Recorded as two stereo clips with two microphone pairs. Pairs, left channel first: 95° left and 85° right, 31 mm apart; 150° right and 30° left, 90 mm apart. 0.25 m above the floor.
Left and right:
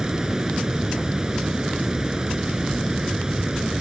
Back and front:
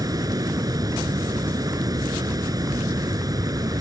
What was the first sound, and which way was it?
Running water, 15° right.